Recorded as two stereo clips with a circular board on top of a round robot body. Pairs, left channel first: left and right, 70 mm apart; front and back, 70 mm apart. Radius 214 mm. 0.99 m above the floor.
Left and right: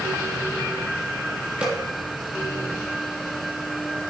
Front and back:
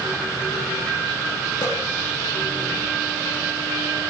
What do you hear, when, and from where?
1.6 s a snare drum: 15° right, 7 m